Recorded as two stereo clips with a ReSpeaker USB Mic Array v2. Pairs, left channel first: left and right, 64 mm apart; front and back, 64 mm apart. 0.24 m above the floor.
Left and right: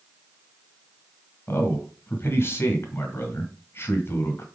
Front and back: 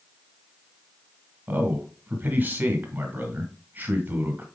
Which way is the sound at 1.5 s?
130° left.